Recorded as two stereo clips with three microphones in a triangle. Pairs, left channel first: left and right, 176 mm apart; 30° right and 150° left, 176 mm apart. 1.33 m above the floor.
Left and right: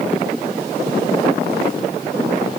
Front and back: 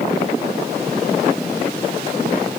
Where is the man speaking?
I don't hear a man speaking.